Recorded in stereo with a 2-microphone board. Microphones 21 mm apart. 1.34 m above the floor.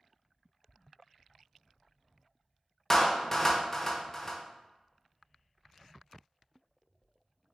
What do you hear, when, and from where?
2.9 s a clap: 20° left (ahead or behind), 0.5 m